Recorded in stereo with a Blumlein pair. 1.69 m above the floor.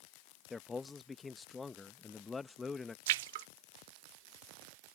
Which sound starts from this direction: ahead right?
A splash, at 3.1 s.